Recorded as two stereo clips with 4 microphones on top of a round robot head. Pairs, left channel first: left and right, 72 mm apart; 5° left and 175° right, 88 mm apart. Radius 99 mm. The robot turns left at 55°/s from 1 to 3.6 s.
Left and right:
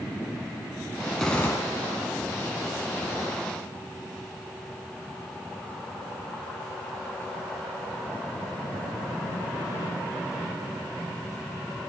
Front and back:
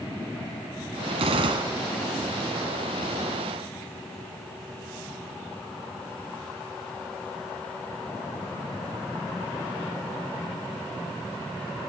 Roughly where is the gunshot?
Behind.